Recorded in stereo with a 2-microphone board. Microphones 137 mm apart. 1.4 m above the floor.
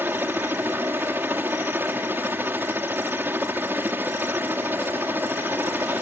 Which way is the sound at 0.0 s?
15° right (ahead or behind).